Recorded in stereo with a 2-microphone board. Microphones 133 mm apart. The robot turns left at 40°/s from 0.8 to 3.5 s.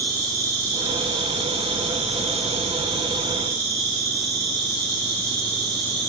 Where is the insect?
35° right, 1.4 m; by 6.1 s 140° right, 1.4 m.